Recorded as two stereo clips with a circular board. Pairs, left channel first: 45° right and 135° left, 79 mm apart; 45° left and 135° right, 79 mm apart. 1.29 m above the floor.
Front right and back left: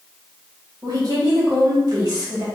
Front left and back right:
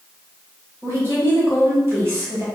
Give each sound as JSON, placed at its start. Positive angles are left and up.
{"t": 0.8, "sound": "a woman speaking", "azimuth_deg": 170, "distance_m": 1.8}